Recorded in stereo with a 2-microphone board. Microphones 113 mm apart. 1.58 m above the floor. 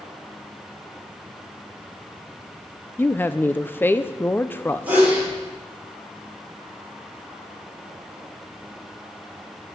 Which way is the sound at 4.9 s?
15° right (ahead or behind).